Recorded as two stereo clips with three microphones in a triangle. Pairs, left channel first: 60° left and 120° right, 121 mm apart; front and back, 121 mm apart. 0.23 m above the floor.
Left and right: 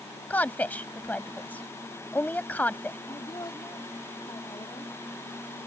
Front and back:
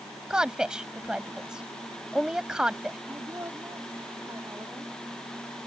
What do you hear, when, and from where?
0.3 s a woman speaking: 105° left
3.1 s a woman speaking: 115° left